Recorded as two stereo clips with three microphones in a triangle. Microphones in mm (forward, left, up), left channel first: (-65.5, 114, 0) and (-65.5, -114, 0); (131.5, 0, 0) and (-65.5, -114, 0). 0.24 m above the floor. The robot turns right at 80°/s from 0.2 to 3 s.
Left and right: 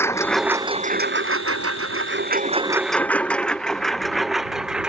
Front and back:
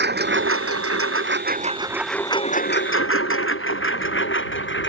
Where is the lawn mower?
170° left; by 4.9 s 5° right.